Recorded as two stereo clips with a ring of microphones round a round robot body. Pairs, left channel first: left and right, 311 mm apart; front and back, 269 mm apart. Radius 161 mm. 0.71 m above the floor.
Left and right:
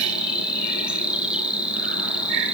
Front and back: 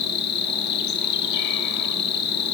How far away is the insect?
About 1.4 m.